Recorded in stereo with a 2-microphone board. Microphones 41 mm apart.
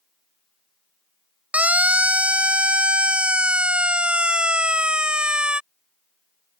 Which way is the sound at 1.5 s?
35° right (ahead or behind).